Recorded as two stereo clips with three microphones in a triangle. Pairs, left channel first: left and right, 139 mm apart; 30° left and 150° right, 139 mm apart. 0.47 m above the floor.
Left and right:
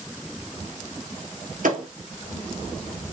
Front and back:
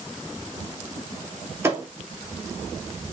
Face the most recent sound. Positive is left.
turn(degrees=-80)